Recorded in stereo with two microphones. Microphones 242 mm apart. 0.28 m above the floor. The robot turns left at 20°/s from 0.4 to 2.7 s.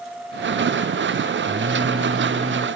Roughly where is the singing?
Right.